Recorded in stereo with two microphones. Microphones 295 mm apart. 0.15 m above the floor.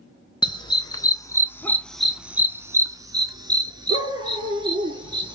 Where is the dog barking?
15° left (ahead or behind), 1.0 m; by 5.3 s 15° right (ahead or behind), 1.9 m.